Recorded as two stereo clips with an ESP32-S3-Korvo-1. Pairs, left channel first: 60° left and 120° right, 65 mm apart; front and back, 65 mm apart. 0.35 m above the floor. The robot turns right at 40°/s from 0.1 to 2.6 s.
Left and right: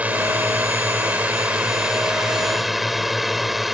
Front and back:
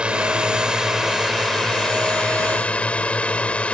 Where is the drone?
135° right; by 3.8 s 35° right.